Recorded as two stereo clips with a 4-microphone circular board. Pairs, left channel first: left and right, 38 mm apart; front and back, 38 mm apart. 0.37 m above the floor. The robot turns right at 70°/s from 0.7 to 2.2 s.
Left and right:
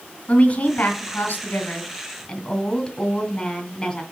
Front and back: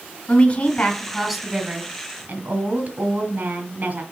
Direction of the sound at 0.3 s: 55° left.